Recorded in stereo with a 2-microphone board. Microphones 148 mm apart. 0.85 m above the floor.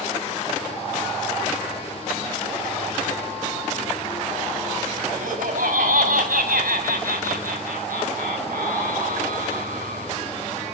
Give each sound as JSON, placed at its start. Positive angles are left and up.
{"t": 5.1, "sound": "laughter", "side_deg": -75, "distance_m": 5.5}